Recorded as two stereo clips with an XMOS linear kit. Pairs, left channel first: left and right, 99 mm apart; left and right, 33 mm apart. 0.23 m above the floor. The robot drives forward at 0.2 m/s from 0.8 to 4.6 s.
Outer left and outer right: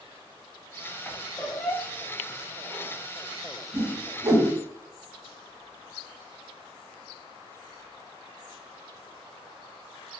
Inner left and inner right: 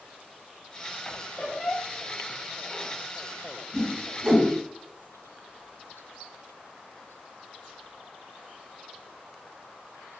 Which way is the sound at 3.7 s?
30° right (ahead or behind).